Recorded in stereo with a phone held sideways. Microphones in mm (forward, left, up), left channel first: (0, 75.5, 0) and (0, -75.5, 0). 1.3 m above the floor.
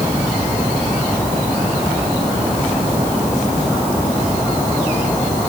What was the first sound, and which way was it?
Only background noise.